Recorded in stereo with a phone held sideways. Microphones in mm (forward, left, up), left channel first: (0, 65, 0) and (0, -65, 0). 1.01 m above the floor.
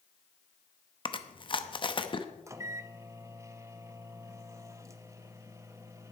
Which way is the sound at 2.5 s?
25° right (ahead or behind).